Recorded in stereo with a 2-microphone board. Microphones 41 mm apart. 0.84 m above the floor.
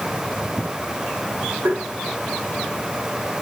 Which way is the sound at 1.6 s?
75° right (ahead or behind).